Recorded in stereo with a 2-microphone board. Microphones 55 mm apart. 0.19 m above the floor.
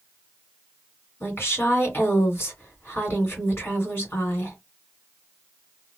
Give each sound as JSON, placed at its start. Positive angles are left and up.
{"t": 1.2, "sound": "a woman speaking", "side_deg": 40, "distance_m": 1.9}